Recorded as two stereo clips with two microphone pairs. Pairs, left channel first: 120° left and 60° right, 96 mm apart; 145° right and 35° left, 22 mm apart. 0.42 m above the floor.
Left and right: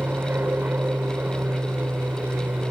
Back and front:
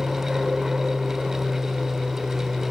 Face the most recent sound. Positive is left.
turn(degrees=-5)